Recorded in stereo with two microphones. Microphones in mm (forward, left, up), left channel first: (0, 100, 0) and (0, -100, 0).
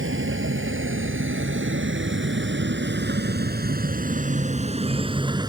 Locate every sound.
0.0 s a vehicle: 90° right; by 5.5 s 20° right (ahead or behind)